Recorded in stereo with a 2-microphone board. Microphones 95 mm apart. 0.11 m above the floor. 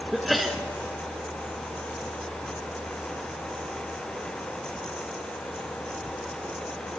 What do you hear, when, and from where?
0.1 s a sneeze: centre (ahead or behind), 1.2 m